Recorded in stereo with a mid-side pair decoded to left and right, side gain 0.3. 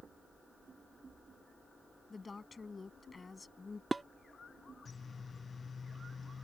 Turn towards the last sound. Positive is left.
turn(degrees=-30)